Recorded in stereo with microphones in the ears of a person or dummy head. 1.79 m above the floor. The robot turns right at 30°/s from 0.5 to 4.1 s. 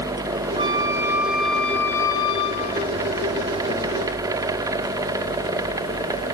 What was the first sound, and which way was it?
A flute, 20° right.